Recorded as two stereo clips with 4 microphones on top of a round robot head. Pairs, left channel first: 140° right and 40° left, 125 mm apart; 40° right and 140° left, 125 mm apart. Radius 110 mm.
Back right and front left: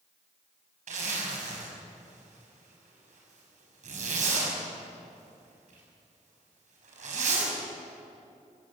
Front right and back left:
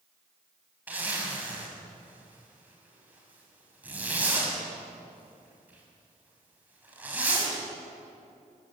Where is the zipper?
65° left, 6 m.